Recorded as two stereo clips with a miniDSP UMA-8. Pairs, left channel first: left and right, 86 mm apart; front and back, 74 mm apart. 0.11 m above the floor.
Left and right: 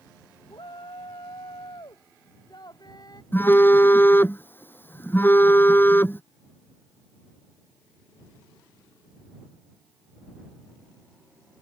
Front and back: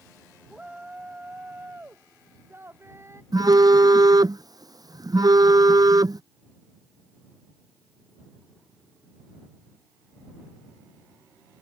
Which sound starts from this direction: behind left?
A phone buzzing, at 3.3 s.